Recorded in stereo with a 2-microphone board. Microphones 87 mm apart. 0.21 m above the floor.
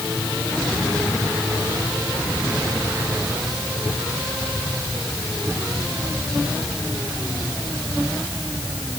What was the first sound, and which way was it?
Only background noise.